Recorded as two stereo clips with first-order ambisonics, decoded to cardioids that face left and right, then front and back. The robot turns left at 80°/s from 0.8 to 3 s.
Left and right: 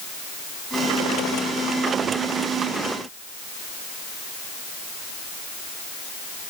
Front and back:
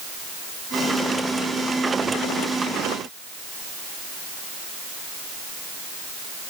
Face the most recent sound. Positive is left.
No sound to turn to.